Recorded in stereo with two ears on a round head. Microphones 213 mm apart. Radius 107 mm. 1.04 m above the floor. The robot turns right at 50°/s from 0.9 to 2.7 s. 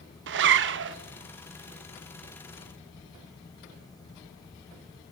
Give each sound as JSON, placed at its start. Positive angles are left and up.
{"t": 0.3, "sound": "a zipper", "side_deg": -50, "distance_m": 0.6}